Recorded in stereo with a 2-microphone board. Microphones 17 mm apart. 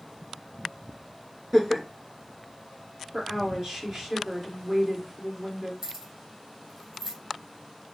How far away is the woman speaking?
About 1.7 m.